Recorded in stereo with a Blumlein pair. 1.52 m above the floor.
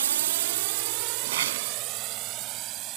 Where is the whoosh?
60° right.